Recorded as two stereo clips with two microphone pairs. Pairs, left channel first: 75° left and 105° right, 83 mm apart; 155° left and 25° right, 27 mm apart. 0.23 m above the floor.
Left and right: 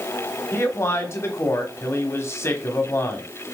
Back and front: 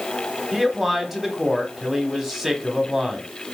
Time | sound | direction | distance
0.5 | a man speaking | 45° left | 1.3 m